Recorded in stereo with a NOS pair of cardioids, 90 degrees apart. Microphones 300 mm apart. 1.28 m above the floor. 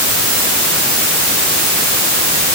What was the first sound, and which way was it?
Only background noise.